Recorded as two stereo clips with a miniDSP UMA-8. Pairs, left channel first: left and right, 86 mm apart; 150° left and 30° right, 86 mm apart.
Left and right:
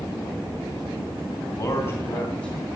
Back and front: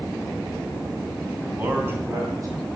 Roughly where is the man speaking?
Ahead left.